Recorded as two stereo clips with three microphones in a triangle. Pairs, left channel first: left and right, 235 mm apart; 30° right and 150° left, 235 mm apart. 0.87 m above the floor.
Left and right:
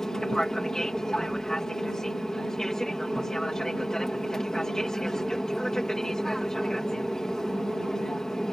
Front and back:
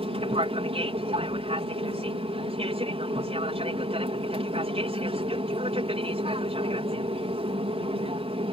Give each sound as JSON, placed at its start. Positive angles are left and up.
{"t": 0.0, "sound": "an aircraft", "azimuth_deg": 175}